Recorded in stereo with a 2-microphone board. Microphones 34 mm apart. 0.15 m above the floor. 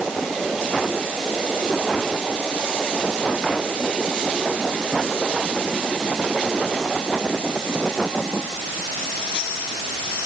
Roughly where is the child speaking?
No child speaking in this recording.